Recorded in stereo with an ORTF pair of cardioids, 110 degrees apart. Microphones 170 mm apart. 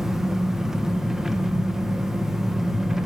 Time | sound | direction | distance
0.0 | an engine running | straight ahead | 1.6 m